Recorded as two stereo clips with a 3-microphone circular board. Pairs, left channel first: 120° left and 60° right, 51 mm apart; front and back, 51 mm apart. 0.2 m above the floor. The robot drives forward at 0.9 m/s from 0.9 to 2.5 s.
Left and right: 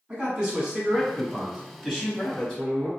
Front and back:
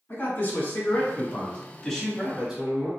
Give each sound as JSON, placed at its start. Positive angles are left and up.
{"t": 0.1, "sound": "a man speaking", "azimuth_deg": 5, "distance_m": 1.6}